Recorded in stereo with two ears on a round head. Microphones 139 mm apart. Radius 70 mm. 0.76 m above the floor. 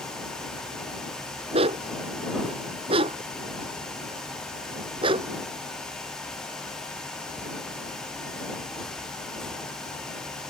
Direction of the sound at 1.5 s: 40° right (ahead or behind).